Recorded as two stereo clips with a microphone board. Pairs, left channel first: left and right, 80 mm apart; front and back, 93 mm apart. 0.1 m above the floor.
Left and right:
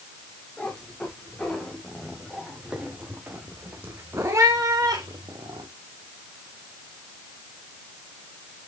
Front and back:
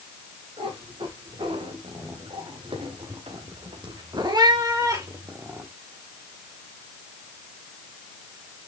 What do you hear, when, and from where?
0.6 s a cat meowing: 170° left, 4.5 m; by 5.7 s 115° right, 2.5 m